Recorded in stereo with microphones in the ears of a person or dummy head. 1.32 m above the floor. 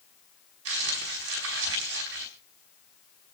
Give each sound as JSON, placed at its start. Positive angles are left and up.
{"t": 0.7, "sound": "crumpling", "side_deg": -75, "distance_m": 4.0}